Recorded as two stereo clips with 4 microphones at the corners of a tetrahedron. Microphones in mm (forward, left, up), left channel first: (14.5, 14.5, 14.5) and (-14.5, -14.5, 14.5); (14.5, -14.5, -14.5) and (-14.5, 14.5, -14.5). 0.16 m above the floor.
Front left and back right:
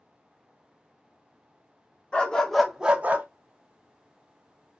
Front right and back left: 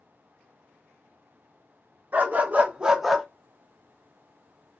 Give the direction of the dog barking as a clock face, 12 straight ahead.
8 o'clock.